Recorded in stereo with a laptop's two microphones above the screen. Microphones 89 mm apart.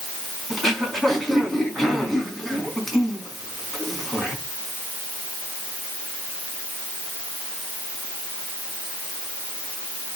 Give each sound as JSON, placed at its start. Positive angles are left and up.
{"t": 0.5, "sound": "throat clearing", "side_deg": 0, "distance_m": 4.5}